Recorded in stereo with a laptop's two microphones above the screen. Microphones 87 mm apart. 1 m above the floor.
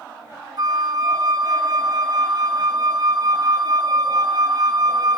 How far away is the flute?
About 0.6 m.